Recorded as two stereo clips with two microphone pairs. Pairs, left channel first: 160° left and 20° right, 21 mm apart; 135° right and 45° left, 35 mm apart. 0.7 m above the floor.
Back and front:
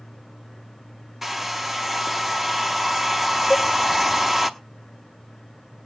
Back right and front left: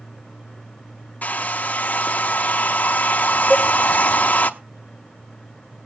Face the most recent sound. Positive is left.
turn(degrees=50)